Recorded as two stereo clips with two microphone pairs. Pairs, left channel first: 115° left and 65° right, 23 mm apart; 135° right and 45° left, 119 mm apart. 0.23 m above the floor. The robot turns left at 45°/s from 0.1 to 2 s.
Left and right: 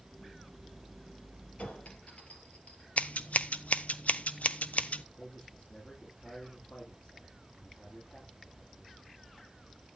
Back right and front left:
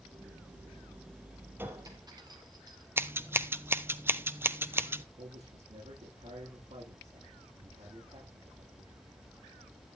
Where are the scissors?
120° left, 0.9 m.